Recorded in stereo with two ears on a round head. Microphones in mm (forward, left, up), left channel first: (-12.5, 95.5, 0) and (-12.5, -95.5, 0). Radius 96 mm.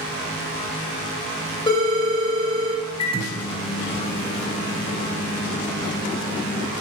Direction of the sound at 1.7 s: 25° left (ahead or behind).